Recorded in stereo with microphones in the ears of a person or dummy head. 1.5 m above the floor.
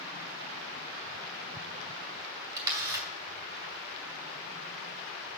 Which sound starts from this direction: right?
A camera shutter, at 2.6 s.